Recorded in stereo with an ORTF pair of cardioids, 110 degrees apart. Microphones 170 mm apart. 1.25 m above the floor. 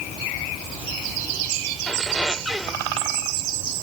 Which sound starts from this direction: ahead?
A squeak, at 1.9 s.